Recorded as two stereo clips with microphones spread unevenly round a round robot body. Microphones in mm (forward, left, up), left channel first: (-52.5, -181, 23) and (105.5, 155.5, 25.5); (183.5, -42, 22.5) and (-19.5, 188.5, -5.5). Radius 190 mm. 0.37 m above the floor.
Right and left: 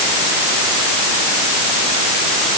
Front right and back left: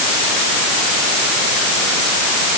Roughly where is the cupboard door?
I don't hear a cupboard door.